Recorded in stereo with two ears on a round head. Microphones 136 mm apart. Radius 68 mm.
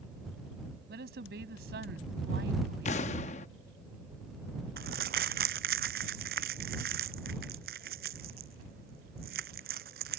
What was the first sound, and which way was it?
A woman speaking, 75° right (ahead or behind).